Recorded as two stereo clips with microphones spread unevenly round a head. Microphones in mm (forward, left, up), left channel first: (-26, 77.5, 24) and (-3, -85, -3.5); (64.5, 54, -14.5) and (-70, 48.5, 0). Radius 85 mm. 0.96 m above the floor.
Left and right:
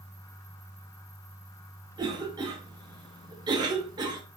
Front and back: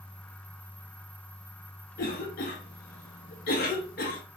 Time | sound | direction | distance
2.0 | a cough | 20° right | 0.9 m